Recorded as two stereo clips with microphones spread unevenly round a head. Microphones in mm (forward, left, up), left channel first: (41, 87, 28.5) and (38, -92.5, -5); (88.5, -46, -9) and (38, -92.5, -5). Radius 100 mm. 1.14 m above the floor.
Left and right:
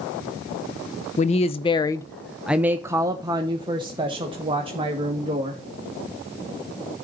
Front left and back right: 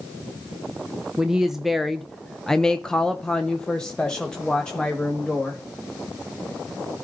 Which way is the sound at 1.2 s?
140° left.